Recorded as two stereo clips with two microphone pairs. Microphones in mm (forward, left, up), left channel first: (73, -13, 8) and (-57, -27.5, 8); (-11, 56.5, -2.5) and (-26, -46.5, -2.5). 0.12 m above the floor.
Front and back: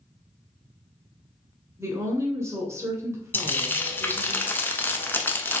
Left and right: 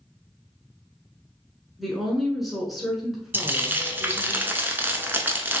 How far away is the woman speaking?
About 1.3 m.